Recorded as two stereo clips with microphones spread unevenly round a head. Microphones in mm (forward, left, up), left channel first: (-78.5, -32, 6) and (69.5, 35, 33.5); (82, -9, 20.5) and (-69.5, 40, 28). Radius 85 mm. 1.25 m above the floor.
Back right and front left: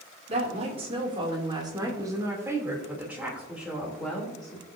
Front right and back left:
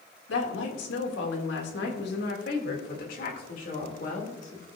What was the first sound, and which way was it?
A woman speaking, 25° right.